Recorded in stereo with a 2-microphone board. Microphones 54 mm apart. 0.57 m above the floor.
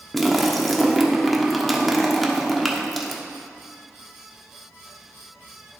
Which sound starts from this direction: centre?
A splash, at 0.1 s.